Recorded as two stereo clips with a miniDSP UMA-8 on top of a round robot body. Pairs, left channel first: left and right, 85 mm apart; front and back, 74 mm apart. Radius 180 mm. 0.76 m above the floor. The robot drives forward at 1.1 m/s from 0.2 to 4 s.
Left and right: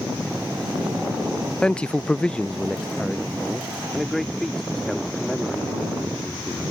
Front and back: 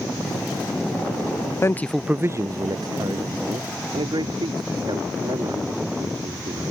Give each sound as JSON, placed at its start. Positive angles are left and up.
{"t": 1.6, "sound": "a man speaking", "azimuth_deg": 15}